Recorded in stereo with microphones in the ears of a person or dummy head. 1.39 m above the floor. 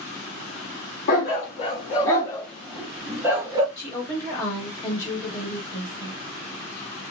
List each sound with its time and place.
1.1 s a dog barking: 50° left (ahead or behind), 1.1 m; by 3.7 s 25° right (ahead or behind), 1.1 m
3.8 s a woman speaking: 15° left (ahead or behind), 1.4 m